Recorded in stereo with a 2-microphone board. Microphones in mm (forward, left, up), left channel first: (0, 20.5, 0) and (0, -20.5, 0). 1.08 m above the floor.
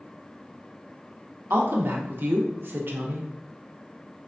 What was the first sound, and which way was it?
A woman speaking, 55° right (ahead or behind).